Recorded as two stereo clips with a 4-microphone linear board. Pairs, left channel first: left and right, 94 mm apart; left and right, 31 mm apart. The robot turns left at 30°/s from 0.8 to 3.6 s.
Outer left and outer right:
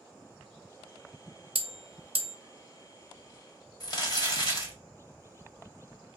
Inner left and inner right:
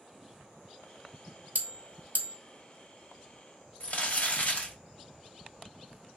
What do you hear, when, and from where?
1.6 s a bell: 65° right (ahead or behind), 0.8 m; by 2.4 s 75° right (ahead or behind), 0.8 m
3.8 s crumpling: 45° left (ahead or behind), 1.3 m